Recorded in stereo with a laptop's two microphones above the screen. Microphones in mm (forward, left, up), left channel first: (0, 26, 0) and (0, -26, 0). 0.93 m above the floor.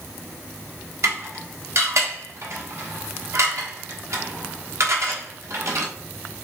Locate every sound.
1.0 s dishes clattering: 65° right (ahead or behind), 1.0 m